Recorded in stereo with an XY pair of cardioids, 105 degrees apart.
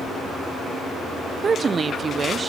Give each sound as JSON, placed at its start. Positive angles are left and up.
{"t": 1.4, "sound": "a woman speaking", "azimuth_deg": -35, "distance_m": 0.5}